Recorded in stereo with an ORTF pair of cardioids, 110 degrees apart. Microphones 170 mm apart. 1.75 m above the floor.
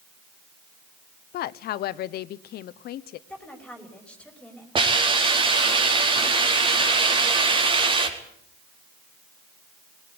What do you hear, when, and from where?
1.3 s a woman speaking: 65° left, 0.9 m
3.3 s a woman speaking: 5° left, 5.5 m
4.8 s a hiss: 30° right, 4.5 m